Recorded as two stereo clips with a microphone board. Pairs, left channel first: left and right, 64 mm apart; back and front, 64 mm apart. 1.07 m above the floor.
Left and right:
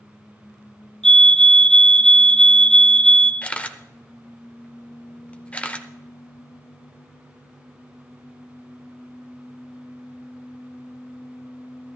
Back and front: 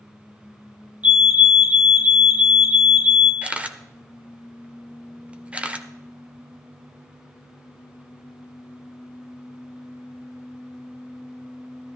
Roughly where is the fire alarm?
Ahead left.